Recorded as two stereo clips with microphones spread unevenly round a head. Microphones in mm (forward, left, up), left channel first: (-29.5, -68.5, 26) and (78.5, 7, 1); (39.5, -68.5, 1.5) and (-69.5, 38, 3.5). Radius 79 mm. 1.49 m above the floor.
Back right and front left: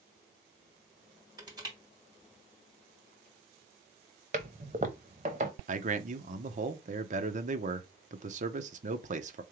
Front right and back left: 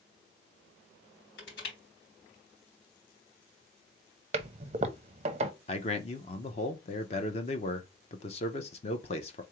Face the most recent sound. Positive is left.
turn(degrees=5)